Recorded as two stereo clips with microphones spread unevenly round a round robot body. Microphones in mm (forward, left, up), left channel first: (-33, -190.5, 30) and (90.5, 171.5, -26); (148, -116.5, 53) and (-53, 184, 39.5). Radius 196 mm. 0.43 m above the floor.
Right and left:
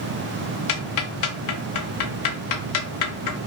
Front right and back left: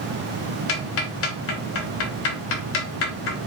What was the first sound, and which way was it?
Ticking, 90° right.